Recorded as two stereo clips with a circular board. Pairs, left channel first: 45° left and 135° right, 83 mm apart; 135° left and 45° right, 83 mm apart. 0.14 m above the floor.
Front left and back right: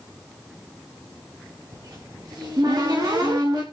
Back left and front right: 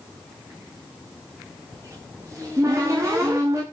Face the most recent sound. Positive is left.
turn(degrees=-95)